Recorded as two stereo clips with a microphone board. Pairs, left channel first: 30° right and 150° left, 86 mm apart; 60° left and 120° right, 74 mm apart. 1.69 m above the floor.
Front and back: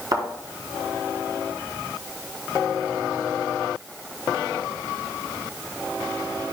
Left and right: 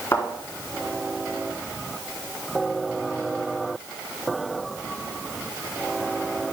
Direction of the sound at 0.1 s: 115° left.